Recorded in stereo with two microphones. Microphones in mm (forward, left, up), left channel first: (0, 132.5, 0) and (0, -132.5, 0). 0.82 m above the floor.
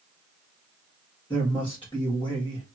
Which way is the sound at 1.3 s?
20° left (ahead or behind).